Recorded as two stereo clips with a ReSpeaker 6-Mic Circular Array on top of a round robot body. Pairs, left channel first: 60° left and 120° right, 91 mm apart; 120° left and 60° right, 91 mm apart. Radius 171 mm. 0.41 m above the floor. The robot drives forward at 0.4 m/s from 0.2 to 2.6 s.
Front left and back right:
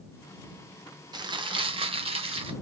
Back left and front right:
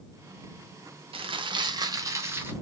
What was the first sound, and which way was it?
Crumpling, 80° right.